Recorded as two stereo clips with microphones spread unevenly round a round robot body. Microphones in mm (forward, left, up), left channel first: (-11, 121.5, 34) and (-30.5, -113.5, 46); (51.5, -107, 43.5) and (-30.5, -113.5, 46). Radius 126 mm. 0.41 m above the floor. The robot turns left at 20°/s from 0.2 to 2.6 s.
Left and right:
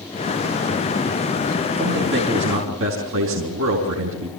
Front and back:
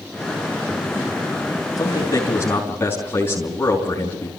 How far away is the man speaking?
About 5 m.